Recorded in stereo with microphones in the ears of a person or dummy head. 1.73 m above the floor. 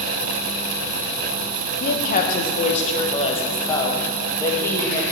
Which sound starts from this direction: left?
A woman speaking, at 1.8 s.